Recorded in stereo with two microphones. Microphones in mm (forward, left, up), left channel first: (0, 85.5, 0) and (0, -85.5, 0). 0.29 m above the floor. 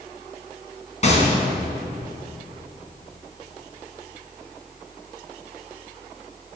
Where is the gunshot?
45° left (ahead or behind), 2 m.